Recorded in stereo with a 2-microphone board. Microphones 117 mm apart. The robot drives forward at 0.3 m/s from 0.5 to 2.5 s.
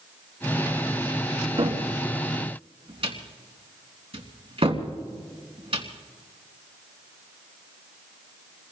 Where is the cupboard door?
50° right (ahead or behind), 3 m.